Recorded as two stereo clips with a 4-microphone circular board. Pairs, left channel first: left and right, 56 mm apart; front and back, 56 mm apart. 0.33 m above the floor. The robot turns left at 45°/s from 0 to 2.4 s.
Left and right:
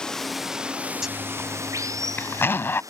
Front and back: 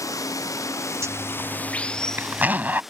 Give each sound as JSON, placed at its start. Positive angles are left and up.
{"t": 0.0, "sound": "running water", "azimuth_deg": 15}
{"t": 1.0, "sound": "a zipper", "azimuth_deg": -170}